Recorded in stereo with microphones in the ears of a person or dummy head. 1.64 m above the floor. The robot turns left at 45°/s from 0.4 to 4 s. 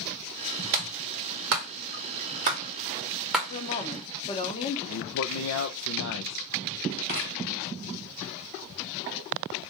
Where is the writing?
45° left (ahead or behind), 1.0 m.